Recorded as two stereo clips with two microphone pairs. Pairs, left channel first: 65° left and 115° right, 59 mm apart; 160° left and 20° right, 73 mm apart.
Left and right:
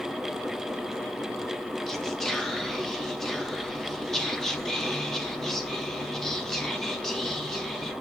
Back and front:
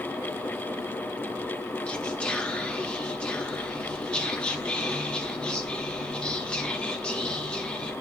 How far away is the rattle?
I don't hear a rattle.